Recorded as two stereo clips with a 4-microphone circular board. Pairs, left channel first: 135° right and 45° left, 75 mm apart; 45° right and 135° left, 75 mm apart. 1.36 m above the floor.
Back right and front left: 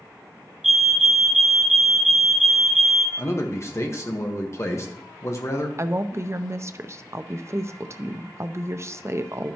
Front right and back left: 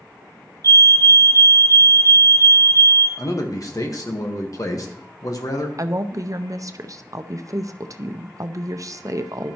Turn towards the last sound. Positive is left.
turn(degrees=95)